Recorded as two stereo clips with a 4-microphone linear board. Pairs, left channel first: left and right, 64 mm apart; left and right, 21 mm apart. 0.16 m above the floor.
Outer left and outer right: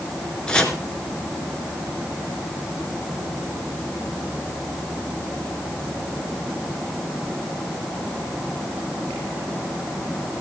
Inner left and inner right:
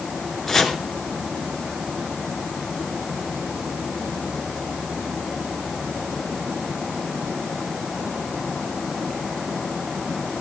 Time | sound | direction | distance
0.5 | chopping | 15° left (ahead or behind) | 2 m